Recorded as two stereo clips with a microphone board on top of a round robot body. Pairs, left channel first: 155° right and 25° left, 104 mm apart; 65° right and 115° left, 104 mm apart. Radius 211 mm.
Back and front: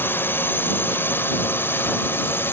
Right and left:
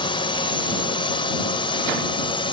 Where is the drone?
90° right.